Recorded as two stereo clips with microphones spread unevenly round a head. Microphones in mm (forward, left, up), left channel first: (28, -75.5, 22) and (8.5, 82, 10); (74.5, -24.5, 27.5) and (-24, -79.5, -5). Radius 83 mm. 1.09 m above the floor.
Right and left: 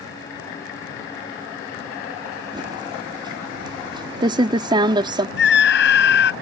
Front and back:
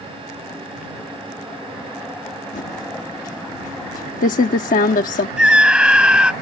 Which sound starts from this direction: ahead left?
Typing on a keyboard, at 2.5 s.